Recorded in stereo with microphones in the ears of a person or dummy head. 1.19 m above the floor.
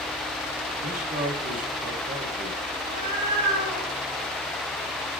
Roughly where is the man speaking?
Right.